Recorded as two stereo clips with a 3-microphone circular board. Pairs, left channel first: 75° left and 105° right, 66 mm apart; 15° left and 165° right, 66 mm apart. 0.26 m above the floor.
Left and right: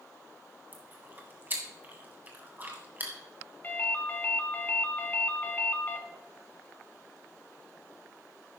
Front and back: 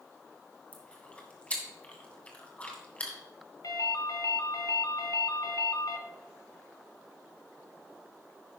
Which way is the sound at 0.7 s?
50° right.